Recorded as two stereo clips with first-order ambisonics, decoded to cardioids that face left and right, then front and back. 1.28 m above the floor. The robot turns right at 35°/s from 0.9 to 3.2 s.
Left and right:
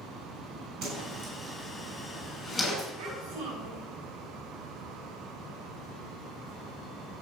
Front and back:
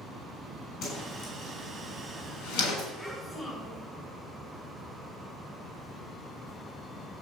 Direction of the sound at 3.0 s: 75° right.